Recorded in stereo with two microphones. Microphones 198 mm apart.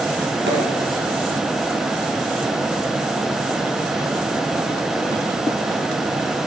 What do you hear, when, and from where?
0.5 s a pop: 80° right, 2.5 m